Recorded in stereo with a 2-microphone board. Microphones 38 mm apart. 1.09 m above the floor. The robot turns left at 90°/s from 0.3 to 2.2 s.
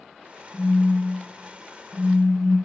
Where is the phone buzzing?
155° right, 0.7 m; by 2.5 s 55° left, 0.7 m.